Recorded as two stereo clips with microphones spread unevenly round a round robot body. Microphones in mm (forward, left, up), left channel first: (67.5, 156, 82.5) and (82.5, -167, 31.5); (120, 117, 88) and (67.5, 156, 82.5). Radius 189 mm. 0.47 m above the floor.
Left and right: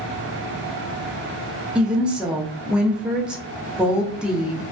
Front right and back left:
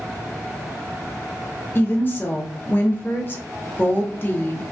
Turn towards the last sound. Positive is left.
turn(degrees=-25)